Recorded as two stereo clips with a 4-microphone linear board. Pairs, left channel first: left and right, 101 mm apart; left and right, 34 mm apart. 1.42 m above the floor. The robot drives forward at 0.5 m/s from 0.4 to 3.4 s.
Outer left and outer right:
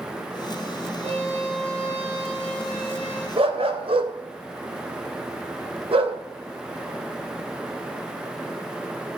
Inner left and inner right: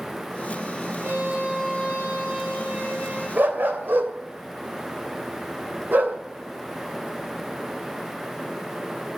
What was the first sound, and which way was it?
A violin, 85° right.